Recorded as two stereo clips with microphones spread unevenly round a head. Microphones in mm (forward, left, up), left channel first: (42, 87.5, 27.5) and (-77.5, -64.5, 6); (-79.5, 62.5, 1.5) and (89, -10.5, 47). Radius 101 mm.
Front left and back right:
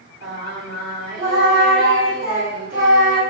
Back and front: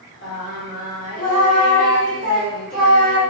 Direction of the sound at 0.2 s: 165° right.